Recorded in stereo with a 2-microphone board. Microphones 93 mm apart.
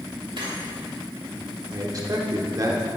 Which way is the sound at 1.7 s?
40° right (ahead or behind).